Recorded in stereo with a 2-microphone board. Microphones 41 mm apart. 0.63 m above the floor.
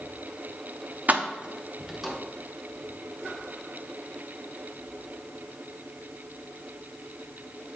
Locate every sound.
1.1 s keys jangling: 45° right (ahead or behind), 0.5 m; by 2.2 s centre (ahead or behind), 1.1 m